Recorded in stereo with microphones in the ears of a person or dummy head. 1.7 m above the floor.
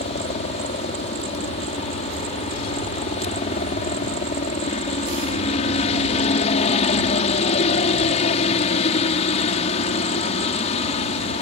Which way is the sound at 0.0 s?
40° left (ahead or behind).